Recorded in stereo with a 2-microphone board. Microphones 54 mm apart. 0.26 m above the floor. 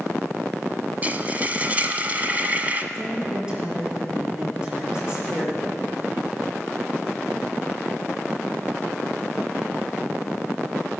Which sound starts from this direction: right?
Frying, at 1.0 s.